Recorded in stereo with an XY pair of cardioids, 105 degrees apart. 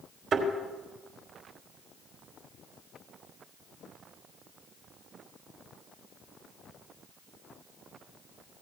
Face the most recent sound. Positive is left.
turn(degrees=-65)